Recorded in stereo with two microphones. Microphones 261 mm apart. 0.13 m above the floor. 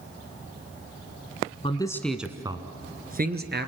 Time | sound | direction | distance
1.6 | a man speaking | 20° left (ahead or behind) | 1.2 m